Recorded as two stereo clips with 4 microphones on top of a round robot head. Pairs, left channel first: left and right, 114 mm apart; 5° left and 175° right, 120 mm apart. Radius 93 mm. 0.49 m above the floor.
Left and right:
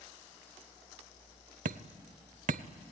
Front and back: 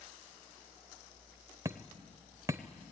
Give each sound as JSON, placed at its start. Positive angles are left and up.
{"t": 1.6, "sound": "hammering", "azimuth_deg": -105, "distance_m": 0.5}